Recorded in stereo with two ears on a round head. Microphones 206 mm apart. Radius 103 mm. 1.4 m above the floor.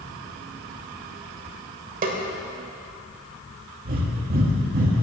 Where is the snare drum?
35° right (ahead or behind), 1.5 m.